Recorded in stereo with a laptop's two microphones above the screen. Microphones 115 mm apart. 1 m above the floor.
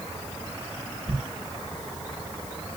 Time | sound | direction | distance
1.1 | a thud | 40° right (ahead or behind) | 1.0 m